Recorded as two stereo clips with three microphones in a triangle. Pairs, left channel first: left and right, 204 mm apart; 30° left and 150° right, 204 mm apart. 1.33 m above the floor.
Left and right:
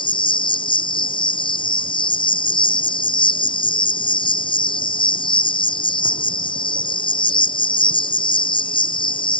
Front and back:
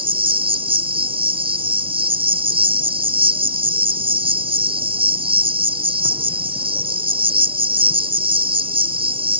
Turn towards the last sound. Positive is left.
turn(degrees=155)